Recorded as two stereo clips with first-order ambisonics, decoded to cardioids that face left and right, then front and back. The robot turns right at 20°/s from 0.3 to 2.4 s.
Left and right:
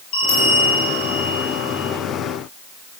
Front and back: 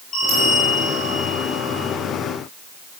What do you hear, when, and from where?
0.1 s a bell: 70° left, 5.5 m; by 1.9 s 100° left, 5.5 m